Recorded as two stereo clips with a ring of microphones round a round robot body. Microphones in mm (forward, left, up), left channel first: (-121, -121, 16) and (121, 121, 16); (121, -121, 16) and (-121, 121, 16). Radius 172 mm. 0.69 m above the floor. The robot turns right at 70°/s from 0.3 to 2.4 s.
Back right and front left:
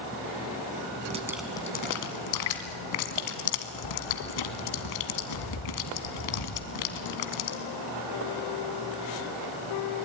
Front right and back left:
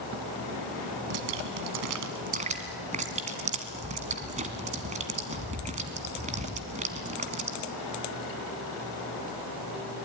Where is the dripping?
115° left, 1.8 m; by 7.6 s 155° right, 1.8 m.